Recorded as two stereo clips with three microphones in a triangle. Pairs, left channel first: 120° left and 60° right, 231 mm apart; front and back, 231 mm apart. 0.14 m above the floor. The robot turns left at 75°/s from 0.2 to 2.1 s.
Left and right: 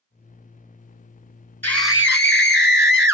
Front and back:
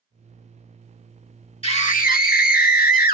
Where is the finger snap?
I don't hear a finger snap.